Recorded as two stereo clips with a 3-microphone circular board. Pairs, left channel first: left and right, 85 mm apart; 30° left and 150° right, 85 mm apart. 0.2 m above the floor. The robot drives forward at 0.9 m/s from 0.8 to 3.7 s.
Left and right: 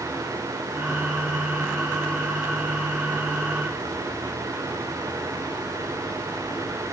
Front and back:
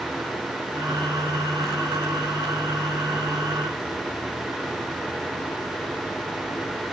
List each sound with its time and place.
Only background noise.